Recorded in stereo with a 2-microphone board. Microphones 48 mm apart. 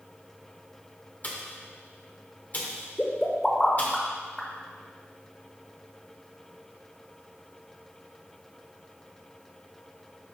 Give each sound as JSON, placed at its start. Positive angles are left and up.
{"t": 1.2, "sound": "a pop", "side_deg": 35, "distance_m": 1.3}
{"t": 3.0, "sound": "a pop", "side_deg": 10, "distance_m": 1.3}